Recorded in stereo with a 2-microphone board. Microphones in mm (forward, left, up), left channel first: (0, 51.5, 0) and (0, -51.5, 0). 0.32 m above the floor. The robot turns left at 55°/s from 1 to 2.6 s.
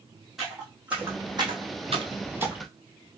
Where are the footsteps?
5° right (ahead or behind), 1.3 m; by 2.7 s 5° left (ahead or behind), 0.7 m.